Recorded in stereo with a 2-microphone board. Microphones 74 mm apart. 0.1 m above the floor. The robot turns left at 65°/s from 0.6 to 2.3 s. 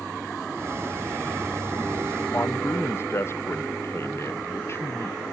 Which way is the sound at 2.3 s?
35° left (ahead or behind).